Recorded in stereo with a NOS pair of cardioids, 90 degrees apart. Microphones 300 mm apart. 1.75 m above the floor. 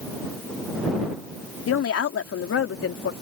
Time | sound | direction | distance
1.7 | a woman speaking | 50° left | ?